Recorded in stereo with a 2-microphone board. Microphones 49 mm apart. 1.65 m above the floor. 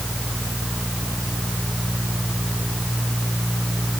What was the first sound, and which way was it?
Only background noise.